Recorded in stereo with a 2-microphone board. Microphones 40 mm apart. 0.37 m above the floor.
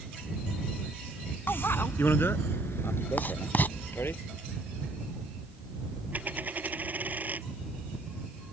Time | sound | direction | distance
1.5 | a bicycle bell | 70° left (ahead or behind) | ?
3.2 | writing | 55° left (ahead or behind) | ?
6.1 | a dropped coin | 45° right (ahead or behind) | ?